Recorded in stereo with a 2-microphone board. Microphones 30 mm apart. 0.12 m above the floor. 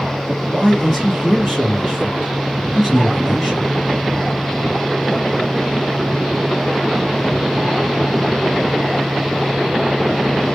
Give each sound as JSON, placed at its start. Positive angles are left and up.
{"t": 0.3, "sound": "a man speaking", "side_deg": 5, "distance_m": 1.8}